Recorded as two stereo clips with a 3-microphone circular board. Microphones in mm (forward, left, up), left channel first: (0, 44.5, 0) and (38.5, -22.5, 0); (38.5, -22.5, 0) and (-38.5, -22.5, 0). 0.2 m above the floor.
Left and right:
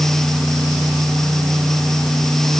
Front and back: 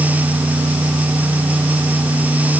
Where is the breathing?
No breathing in this recording.